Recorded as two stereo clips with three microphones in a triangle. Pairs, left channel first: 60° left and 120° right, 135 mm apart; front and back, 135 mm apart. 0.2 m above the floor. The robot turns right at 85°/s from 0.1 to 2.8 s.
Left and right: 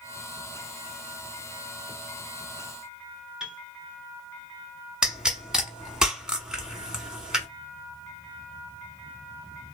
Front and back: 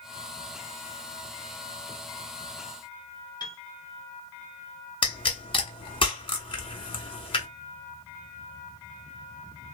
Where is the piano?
35° right, 0.7 m.